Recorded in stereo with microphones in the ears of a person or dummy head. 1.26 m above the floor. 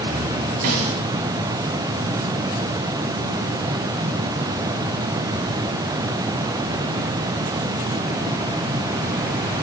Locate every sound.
0.6 s a snare drum: 45° right (ahead or behind), 1.9 m